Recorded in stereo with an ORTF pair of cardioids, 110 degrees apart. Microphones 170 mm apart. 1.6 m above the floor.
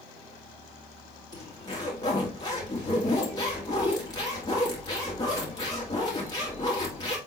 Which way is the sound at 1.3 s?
25° left.